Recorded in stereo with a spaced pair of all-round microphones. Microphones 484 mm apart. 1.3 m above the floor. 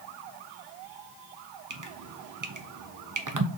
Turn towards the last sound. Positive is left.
turn(degrees=-40)  # may be behind; listen again after turning